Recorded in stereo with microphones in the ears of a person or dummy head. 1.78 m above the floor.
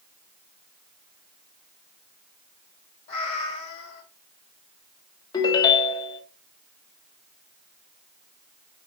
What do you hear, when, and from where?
3.1 s a cat meowing: 35° left (ahead or behind), 3 m
5.3 s a ringtone: 25° left (ahead or behind), 1.7 m